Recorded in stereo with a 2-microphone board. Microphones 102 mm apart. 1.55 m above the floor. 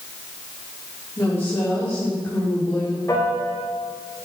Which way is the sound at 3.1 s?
25° left (ahead or behind).